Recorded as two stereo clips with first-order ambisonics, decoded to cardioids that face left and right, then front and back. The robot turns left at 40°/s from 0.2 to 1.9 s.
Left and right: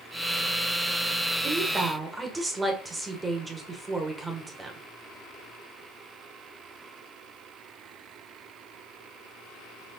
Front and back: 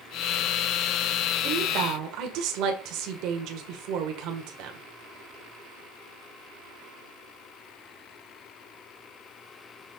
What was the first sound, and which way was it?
A woman speaking, 150° right.